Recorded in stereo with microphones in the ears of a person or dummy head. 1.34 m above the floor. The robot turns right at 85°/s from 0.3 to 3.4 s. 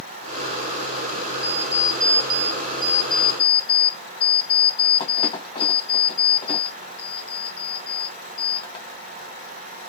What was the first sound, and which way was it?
An alarm clock, 130° right.